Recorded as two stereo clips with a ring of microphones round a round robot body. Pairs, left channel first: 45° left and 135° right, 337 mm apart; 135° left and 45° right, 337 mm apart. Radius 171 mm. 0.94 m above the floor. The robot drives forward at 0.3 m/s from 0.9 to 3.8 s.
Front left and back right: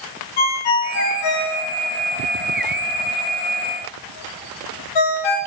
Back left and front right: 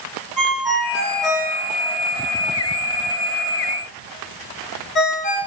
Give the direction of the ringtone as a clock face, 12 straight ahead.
11 o'clock.